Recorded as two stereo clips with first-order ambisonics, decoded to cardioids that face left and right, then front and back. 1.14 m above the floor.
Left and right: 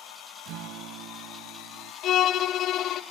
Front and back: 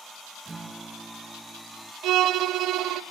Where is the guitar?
105° right, 0.6 m.